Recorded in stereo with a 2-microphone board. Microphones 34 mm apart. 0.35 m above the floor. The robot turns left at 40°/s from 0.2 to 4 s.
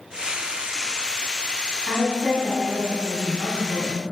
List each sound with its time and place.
1.9 s a woman speaking: 10° right, 3 m; by 4.0 s 95° right, 3 m